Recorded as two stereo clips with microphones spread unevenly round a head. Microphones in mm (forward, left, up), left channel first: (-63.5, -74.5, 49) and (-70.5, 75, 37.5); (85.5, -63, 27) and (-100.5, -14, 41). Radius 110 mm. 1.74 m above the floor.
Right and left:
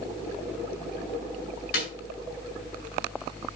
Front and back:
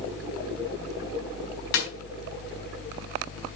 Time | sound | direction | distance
1.7 | a snare drum | 35° right | 4.5 m